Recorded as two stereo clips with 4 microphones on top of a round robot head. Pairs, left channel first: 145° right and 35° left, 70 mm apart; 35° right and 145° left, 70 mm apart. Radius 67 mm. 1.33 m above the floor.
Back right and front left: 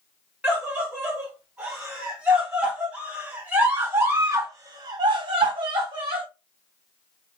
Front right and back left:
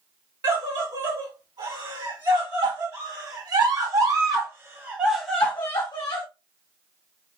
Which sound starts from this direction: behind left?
A scream, at 0.4 s.